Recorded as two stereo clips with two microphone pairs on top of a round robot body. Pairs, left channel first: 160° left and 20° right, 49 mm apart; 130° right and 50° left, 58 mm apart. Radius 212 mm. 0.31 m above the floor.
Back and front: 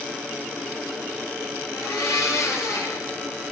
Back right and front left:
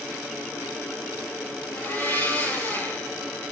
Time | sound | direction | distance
1.7 | a blender | 170° left | 8.5 m